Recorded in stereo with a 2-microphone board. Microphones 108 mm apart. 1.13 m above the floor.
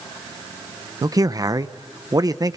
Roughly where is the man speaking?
Right.